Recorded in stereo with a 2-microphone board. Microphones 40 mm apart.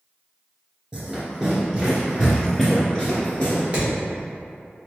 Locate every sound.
0.9 s running footsteps: 25° right (ahead or behind), 1.7 m; by 3.6 s 25° left (ahead or behind), 1.7 m
3.7 s hammering: 30° right (ahead or behind), 1.4 m